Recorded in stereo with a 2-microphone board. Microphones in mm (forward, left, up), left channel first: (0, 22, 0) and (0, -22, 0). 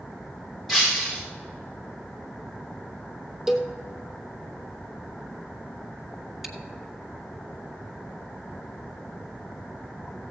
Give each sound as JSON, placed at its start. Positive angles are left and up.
{"t": 0.7, "sound": "breaking glass", "side_deg": -5, "distance_m": 4.0}
{"t": 3.5, "sound": "a cowbell", "side_deg": -10, "distance_m": 1.1}
{"t": 6.4, "sound": "chewing", "side_deg": -5, "distance_m": 1.4}